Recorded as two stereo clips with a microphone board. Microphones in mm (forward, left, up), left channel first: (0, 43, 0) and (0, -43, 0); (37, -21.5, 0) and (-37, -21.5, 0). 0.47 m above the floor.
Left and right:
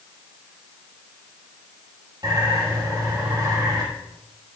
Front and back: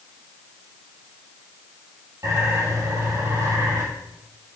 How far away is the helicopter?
I don't hear a helicopter.